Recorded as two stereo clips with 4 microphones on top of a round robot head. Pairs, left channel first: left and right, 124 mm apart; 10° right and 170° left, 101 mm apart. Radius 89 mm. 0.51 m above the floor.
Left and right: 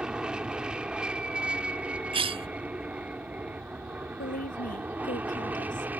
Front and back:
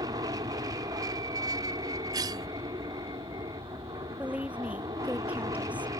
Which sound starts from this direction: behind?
An aircraft, at 0.0 s.